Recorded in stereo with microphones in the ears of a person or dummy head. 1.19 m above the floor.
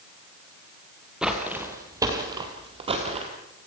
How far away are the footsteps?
About 2 m.